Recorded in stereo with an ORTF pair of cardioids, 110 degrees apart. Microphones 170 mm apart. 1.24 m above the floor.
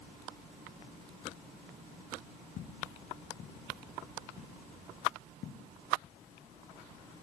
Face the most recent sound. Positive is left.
turn(degrees=60)